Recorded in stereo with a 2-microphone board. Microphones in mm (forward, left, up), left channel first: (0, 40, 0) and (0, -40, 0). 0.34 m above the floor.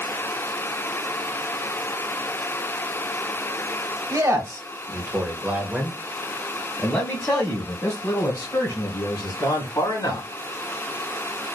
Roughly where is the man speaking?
Right.